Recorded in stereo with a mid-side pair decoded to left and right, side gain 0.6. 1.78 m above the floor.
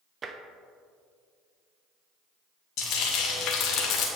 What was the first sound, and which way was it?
Tapping, 35° right.